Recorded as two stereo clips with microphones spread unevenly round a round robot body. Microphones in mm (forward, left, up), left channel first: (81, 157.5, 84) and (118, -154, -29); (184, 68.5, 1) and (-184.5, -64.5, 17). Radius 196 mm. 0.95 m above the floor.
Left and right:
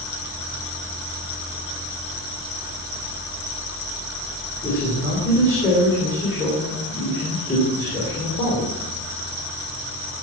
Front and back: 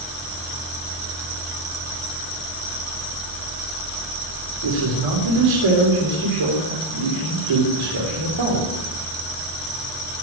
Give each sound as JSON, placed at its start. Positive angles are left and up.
{"t": 4.6, "sound": "a man speaking", "azimuth_deg": -175, "distance_m": 3.5}